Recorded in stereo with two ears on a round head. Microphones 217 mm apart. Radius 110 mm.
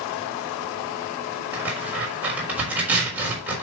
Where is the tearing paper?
5° right (ahead or behind), 4 m.